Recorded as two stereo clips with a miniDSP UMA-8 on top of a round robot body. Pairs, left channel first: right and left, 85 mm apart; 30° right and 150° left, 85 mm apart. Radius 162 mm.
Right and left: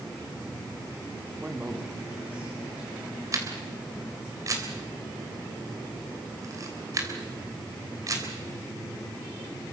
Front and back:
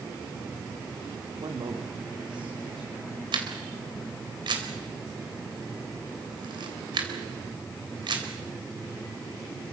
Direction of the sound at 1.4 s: 160° left.